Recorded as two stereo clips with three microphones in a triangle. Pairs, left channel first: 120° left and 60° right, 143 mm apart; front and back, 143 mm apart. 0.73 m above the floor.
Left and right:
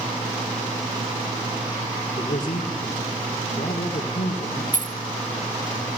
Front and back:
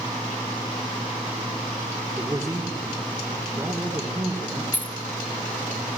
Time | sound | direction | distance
2.2 | a man speaking | 110° left | 2.5 m
4.7 | keys jangling | 75° right | 0.7 m